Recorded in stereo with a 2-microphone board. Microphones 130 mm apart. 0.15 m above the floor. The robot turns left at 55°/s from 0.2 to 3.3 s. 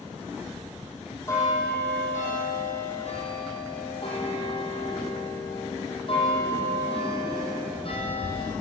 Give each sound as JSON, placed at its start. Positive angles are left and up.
{"t": 0.5, "sound": "a bell", "azimuth_deg": -155, "distance_m": 4.0}